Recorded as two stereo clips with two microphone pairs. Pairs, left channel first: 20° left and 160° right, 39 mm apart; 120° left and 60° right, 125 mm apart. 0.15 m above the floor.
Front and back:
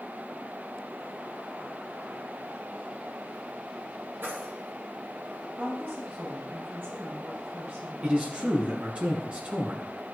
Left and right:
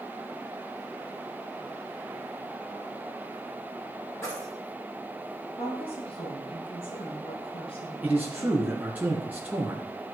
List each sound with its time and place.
4.2 s keys jangling: 170° right, 3.5 m
5.6 s a woman speaking: 160° left, 5.5 m
8.0 s a man speaking: 125° right, 2 m